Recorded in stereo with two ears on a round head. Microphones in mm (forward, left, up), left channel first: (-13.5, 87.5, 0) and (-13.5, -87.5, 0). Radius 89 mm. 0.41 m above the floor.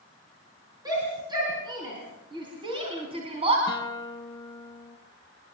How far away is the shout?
About 6.5 m.